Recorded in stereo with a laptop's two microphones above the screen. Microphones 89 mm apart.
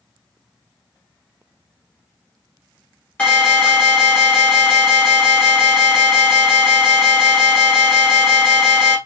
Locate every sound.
3.2 s an alarm: 15° left (ahead or behind), 2 m